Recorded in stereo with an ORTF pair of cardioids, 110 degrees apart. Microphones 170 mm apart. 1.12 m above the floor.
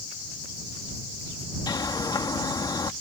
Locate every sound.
1.7 s a bird: 25° left